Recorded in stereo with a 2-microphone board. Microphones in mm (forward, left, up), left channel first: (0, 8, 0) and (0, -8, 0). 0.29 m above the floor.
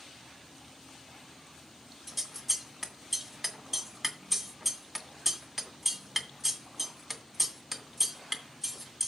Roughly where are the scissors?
Centre.